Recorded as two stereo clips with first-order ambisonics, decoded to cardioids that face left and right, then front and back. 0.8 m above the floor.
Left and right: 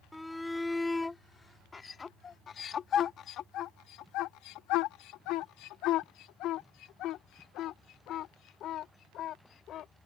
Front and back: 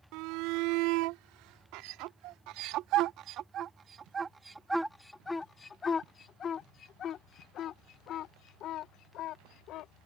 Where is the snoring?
No snoring in this recording.